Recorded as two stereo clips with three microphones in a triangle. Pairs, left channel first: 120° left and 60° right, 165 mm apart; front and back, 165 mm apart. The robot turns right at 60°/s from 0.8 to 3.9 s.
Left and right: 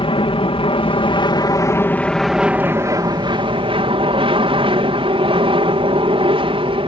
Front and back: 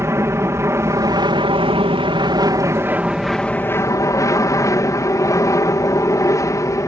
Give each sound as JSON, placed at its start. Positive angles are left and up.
{"t": 0.0, "sound": "an aircraft", "azimuth_deg": 120}